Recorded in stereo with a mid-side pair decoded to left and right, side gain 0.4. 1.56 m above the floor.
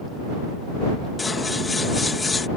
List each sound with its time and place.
1.2 s scissors: 30° left